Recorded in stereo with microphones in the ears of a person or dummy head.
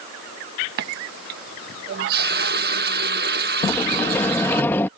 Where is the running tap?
55° right (ahead or behind).